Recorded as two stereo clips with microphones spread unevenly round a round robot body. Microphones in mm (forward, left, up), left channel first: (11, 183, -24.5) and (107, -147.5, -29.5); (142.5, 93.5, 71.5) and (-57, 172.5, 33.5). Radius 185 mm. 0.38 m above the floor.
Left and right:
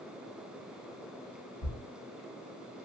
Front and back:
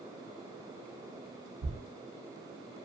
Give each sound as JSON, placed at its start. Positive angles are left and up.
{"t": 1.6, "sound": "a thud", "azimuth_deg": 135, "distance_m": 0.7}